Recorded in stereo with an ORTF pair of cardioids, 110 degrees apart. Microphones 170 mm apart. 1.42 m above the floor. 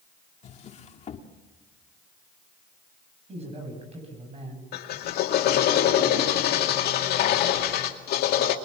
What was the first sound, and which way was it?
A drawer, 45° left.